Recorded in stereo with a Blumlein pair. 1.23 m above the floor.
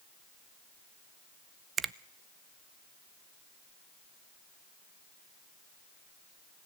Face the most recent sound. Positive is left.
turn(degrees=-20)